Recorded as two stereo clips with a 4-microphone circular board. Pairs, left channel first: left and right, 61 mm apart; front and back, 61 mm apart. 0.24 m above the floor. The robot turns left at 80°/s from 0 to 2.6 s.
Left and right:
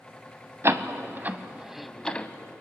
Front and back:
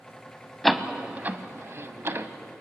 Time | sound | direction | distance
0.6 | a door slam | 85° right | 0.9 m